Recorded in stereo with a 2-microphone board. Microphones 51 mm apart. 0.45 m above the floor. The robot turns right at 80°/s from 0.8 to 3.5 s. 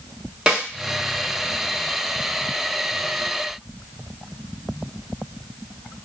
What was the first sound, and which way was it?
A snare drum, 20° right (ahead or behind).